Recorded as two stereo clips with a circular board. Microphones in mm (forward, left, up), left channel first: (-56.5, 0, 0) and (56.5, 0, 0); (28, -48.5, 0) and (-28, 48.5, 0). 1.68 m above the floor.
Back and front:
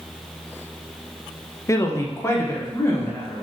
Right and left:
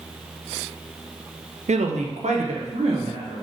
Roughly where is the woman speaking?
Behind left.